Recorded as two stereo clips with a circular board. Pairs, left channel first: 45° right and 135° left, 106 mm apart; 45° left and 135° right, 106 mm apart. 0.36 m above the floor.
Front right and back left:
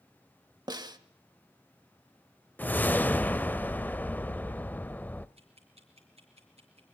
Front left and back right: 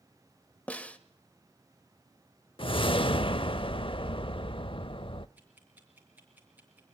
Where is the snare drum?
115° left, 1.3 m.